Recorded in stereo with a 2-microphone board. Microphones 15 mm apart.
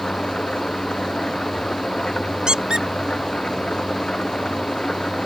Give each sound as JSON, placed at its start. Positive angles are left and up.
{"t": 0.0, "sound": "an engine running", "side_deg": 60}
{"t": 2.5, "sound": "a squeak", "side_deg": -60}